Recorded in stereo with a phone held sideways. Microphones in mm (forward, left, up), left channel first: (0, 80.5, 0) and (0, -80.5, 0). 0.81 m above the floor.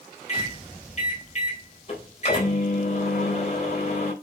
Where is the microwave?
45° left (ahead or behind), 3.5 m.